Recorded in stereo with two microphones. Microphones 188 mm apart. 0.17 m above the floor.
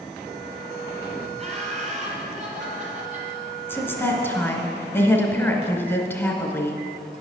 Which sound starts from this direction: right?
Laughter, at 1.4 s.